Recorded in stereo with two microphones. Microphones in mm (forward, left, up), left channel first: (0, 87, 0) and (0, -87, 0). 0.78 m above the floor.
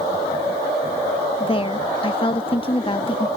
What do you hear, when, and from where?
1.4 s a woman speaking: 30° left (ahead or behind)